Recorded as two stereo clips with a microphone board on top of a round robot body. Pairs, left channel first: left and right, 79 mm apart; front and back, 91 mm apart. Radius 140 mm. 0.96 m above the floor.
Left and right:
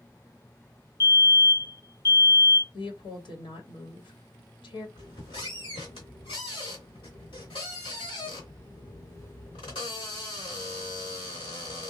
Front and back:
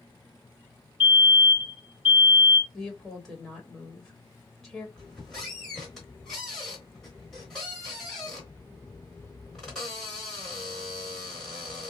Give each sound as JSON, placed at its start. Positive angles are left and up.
{"t": 1.0, "sound": "a fire alarm", "azimuth_deg": 115, "distance_m": 2.5}
{"t": 2.7, "sound": "a woman speaking", "azimuth_deg": 90, "distance_m": 1.4}
{"t": 5.0, "sound": "a squeak", "azimuth_deg": 85, "distance_m": 0.9}